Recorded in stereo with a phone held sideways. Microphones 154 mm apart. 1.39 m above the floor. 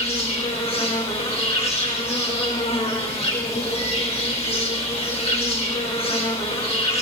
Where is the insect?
45° left (ahead or behind), 4 m.